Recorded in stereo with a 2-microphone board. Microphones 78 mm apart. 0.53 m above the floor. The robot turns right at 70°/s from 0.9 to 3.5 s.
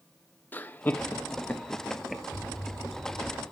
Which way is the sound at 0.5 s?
25° left (ahead or behind).